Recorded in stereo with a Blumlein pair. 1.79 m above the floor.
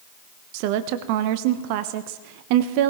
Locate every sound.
0.5 s a woman speaking: 45° right, 1.0 m